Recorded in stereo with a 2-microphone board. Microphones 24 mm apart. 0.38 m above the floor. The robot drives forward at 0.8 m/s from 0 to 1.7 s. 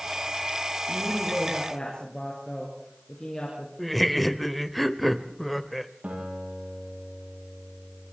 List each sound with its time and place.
0.9 s a woman speaking: 25° left (ahead or behind), 7 m
3.8 s laughter: centre (ahead or behind), 1.2 m
6.0 s a guitar: 80° right, 9.5 m